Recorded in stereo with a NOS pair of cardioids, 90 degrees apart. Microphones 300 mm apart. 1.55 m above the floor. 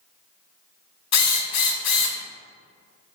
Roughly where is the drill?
Ahead left.